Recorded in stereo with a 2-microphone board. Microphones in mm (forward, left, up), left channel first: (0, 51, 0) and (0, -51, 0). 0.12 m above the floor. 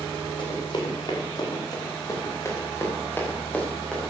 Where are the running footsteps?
50° left (ahead or behind), 7 m; by 4.1 s 5° left (ahead or behind), 6 m.